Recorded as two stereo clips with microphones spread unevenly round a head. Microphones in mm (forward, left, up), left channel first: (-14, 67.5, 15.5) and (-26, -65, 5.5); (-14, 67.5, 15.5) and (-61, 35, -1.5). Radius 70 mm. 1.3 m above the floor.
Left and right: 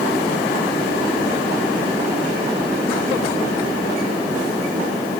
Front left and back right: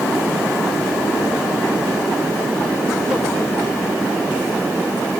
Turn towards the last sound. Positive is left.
No sound to turn to.